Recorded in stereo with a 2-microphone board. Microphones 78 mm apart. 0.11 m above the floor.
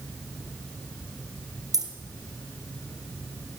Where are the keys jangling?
55° right (ahead or behind), 1.7 m.